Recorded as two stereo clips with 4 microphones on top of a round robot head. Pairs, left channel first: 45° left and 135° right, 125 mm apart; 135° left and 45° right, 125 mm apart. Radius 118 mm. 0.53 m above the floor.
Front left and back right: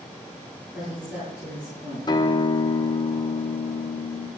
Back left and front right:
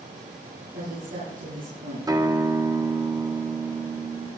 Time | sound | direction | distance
0.7 | a woman speaking | 60° right | 9 m
2.1 | a guitar | 5° left | 1.1 m